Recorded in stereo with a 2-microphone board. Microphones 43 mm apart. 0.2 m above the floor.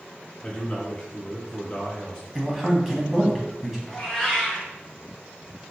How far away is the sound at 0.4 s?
About 1.2 m.